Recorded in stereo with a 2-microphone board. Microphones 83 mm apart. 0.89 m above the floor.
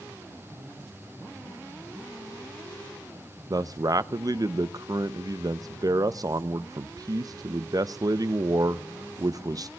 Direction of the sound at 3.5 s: 45° right (ahead or behind).